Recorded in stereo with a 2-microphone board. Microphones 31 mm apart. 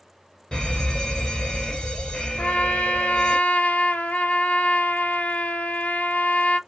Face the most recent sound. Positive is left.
turn(degrees=65)  # may be behind; listen again after turning